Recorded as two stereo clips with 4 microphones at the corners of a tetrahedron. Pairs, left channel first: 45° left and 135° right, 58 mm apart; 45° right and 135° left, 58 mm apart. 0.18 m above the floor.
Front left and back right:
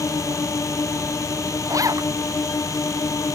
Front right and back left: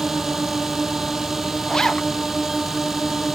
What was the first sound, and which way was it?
A drone, 50° left.